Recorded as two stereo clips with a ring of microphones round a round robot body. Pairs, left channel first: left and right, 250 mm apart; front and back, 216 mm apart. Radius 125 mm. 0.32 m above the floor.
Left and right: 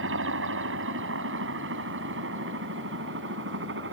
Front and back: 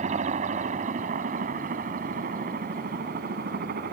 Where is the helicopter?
120° right; by 3.9 s 130° right.